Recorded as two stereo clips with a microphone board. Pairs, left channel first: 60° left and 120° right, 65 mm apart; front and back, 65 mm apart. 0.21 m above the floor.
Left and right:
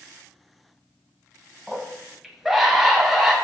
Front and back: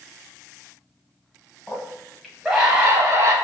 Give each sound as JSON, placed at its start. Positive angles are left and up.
{"t": 1.7, "sound": "a scream", "azimuth_deg": -35, "distance_m": 1.0}